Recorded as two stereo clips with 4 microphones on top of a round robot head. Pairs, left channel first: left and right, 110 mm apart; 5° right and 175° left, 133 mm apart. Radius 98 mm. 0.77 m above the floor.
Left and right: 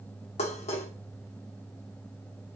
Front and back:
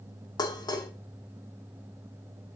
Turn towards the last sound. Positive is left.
turn(degrees=55)